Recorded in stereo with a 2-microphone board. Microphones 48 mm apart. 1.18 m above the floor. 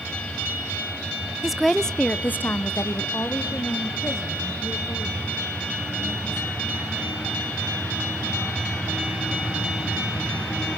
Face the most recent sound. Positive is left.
turn(degrees=55)  # may be behind; listen again after turning